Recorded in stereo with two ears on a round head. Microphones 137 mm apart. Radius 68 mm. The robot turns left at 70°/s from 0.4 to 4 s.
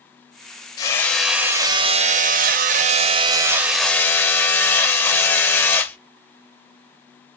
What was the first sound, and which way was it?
Hammering, 30° left.